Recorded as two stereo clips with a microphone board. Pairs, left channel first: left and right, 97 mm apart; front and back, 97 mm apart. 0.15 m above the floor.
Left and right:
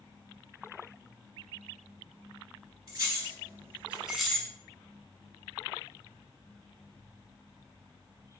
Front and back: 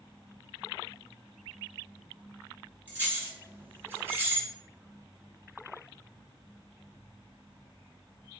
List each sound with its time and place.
2.9 s keys jangling: 115° right, 1.2 m; by 4.5 s 150° left, 0.8 m